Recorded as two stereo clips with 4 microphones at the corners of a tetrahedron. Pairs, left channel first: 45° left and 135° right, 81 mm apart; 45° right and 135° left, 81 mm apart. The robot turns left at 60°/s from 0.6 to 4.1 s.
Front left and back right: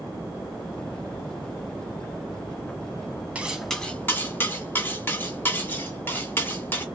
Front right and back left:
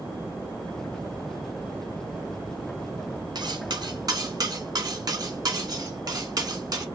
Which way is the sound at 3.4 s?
150° left.